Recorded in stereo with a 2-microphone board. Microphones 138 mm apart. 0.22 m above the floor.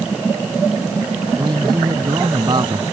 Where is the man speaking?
35° right (ahead or behind).